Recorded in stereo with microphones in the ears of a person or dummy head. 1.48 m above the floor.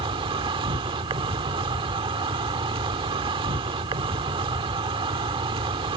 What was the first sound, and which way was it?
An insect, 25° right (ahead or behind).